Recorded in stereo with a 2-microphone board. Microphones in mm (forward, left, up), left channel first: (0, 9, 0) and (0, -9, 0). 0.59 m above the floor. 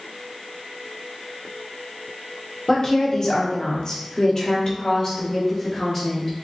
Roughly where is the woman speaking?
Left.